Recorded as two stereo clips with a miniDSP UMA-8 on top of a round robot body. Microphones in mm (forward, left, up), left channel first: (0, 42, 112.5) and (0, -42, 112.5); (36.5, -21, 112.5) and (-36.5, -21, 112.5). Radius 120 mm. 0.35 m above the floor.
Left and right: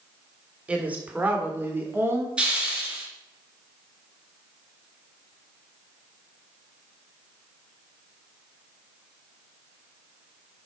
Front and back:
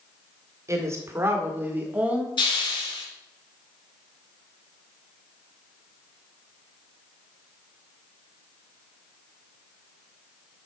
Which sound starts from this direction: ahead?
A hiss, at 2.4 s.